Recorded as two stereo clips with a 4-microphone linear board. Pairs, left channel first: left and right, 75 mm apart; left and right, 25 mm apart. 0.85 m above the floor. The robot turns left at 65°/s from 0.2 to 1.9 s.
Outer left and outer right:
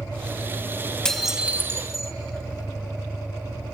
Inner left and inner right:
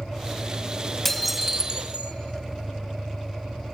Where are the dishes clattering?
10° left, 0.6 m; by 2.1 s 45° right, 0.6 m.